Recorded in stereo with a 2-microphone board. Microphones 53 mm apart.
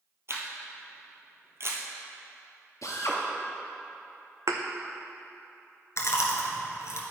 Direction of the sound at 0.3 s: 55° right (ahead or behind).